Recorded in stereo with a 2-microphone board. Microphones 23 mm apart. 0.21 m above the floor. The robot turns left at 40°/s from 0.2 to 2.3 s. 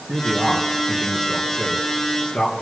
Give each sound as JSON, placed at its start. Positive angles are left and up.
{"t": 0.1, "sound": "a man speaking", "azimuth_deg": -140, "distance_m": 3.5}